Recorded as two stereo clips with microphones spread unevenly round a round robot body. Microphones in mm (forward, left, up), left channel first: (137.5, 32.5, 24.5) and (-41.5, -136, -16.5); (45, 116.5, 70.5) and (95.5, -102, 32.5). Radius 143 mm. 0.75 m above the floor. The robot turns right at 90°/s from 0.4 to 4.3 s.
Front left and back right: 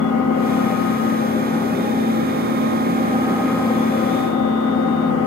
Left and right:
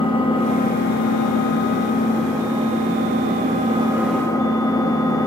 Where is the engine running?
30° left, 1.0 m; by 5.3 s 25° left, 1.0 m.